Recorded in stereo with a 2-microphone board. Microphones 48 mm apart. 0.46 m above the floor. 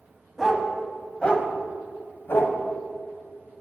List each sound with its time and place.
0.4 s a dog barking: centre (ahead or behind), 1.1 m; by 2.6 s 65° left (ahead or behind), 1.1 m